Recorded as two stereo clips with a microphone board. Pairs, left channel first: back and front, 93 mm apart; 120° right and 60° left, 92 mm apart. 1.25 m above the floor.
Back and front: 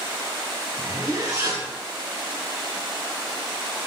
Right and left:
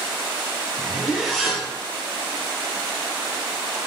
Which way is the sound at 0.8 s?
35° right.